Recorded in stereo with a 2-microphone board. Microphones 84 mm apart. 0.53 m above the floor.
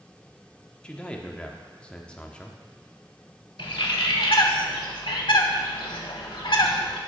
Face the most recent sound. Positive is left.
turn(degrees=85)